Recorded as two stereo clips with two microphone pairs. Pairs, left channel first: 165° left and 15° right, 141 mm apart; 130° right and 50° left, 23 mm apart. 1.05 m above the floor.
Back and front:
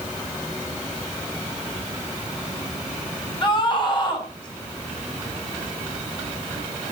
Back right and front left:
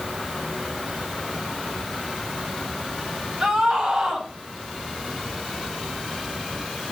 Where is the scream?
110° left, 10 m.